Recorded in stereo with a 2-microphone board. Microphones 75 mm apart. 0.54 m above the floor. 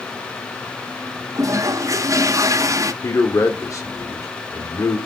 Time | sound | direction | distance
1.4 | a toilet flushing | 50° right (ahead or behind) | 0.7 m
3.0 | a man speaking | 45° left (ahead or behind) | 1.6 m